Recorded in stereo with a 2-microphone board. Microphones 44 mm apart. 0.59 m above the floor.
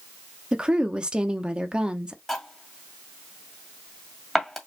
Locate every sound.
0.5 s a woman speaking: 20° right (ahead or behind), 0.8 m
2.3 s cutlery clinking: 5° left (ahead or behind), 2 m